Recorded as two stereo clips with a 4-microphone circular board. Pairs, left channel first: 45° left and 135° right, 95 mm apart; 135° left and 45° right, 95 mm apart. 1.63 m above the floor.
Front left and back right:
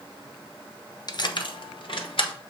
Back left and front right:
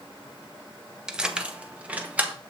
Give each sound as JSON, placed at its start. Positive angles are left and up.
{"t": 1.1, "sound": "keys jangling", "azimuth_deg": 35, "distance_m": 0.7}